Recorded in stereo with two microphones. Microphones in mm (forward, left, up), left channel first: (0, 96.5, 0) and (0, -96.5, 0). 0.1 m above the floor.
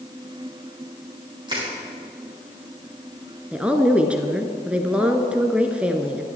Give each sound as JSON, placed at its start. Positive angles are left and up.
{"t": 1.5, "sound": "crushing", "side_deg": -25, "distance_m": 7.5}
{"t": 3.5, "sound": "a woman speaking", "side_deg": -5, "distance_m": 1.2}